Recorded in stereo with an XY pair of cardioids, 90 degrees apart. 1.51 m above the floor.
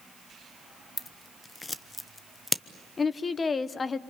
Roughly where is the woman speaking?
Ahead left.